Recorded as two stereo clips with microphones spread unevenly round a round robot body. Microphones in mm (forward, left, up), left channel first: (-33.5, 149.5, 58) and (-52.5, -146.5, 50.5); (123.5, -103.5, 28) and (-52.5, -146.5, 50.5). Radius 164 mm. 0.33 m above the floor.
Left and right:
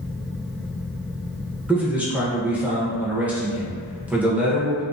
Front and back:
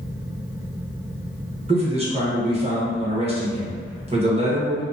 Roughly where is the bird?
No bird in this recording.